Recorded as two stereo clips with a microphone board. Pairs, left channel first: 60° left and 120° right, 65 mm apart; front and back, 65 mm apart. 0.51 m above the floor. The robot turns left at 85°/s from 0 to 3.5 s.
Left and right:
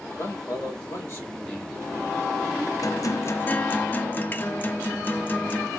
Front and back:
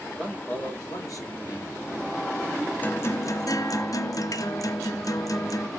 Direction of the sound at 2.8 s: 60° left.